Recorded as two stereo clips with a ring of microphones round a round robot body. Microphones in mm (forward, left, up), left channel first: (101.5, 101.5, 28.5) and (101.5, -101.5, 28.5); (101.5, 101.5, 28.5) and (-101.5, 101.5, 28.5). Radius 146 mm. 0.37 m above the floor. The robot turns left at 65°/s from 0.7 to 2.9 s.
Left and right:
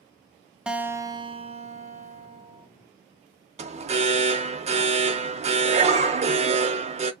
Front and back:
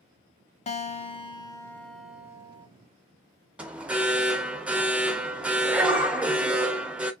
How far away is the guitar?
About 0.5 m.